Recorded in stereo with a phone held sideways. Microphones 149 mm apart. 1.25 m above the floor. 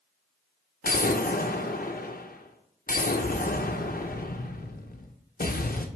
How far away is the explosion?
About 0.7 m.